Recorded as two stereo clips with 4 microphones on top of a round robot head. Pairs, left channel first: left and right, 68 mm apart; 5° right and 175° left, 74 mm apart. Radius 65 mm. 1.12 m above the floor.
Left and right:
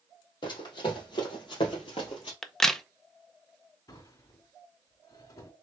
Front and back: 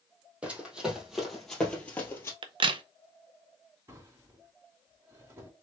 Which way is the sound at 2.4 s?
175° left.